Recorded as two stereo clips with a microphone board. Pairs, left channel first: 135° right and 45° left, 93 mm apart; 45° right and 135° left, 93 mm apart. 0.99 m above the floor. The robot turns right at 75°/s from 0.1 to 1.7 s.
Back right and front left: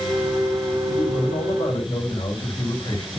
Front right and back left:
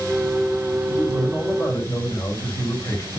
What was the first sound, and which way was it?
A man speaking, 155° right.